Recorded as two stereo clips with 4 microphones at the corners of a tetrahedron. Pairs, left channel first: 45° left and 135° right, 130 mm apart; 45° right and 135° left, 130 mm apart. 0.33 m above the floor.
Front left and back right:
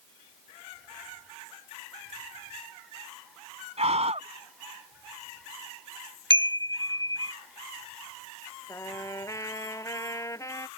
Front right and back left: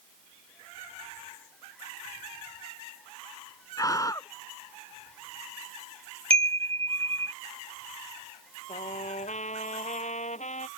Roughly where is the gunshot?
No gunshot in this recording.